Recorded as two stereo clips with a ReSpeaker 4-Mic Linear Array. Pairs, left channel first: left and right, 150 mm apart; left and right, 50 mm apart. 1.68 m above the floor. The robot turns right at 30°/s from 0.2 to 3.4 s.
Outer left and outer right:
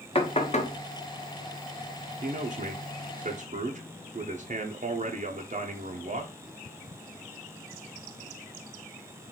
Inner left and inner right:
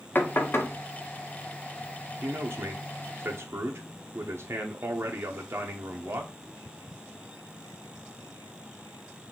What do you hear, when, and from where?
0.1 s knocking: 40° left (ahead or behind), 0.7 m; by 0.8 s 55° left (ahead or behind), 0.7 m
2.2 s a man speaking: 105° right, 0.5 m; by 6.3 s 70° right, 0.5 m